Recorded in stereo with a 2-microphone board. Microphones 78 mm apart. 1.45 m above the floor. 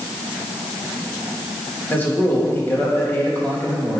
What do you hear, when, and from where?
1.9 s a man speaking: 25° left (ahead or behind), 3 m